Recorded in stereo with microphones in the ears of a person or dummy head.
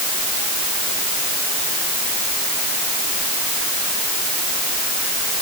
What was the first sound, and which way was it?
Only background noise.